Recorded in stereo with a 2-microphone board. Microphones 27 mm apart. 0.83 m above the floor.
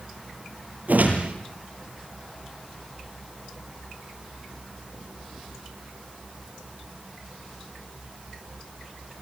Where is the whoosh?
85° right, 6 m.